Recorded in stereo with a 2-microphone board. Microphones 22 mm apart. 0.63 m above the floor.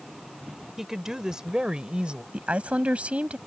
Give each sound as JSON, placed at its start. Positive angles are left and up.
{"t": 0.8, "sound": "a woman speaking", "side_deg": -15}
{"t": 2.3, "sound": "a woman speaking", "side_deg": -75}